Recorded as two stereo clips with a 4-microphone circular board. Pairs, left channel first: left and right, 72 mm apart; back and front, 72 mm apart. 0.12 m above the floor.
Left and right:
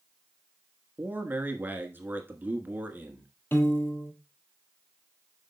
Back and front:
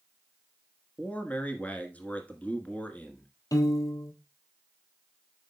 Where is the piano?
145° left, 1.3 m.